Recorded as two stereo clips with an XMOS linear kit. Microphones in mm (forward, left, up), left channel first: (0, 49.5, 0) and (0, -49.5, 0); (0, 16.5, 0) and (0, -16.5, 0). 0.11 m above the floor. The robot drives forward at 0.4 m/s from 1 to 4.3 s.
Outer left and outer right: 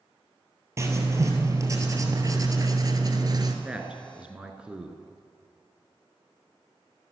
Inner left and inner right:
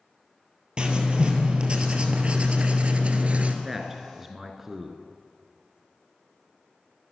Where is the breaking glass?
I don't hear breaking glass.